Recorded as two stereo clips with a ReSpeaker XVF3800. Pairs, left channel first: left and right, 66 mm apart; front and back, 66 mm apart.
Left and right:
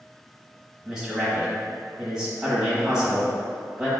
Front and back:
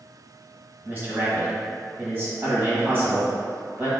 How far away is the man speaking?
About 1.2 m.